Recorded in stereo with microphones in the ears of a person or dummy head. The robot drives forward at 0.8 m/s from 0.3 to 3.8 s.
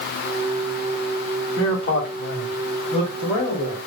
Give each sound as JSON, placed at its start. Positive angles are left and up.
{"t": 1.6, "sound": "a man speaking", "side_deg": 50, "distance_m": 0.8}